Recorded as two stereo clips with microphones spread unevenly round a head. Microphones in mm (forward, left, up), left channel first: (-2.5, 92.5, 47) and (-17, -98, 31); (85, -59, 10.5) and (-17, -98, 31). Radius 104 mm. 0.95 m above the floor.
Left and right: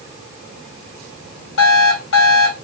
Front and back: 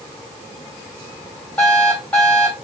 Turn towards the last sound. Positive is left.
turn(degrees=110)